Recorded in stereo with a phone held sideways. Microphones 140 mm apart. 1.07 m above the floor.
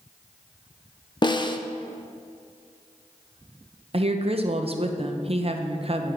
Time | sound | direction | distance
1.2 | a snare drum | 35° left (ahead or behind) | 0.5 m
3.9 | a woman speaking | 45° right (ahead or behind) | 0.7 m